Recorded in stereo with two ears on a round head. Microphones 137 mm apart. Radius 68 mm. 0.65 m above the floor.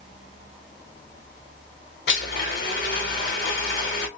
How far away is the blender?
About 1.5 m.